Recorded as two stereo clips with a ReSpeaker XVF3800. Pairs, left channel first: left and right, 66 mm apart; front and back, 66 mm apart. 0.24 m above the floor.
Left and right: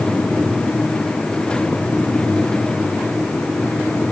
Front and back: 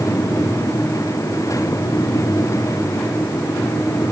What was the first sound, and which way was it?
Only background noise.